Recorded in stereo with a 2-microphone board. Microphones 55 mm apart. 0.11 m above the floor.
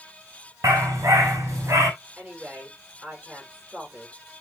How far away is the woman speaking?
About 9.5 m.